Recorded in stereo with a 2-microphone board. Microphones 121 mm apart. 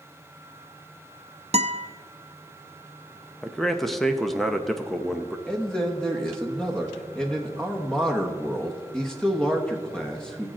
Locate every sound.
1.5 s a guitar: 60° right (ahead or behind), 0.6 m
3.4 s a man speaking: centre (ahead or behind), 0.8 m
5.5 s a man speaking: 5° left (ahead or behind), 1.1 m